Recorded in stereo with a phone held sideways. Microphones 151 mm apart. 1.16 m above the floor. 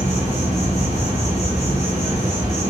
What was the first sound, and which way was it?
An insect, 20° right (ahead or behind).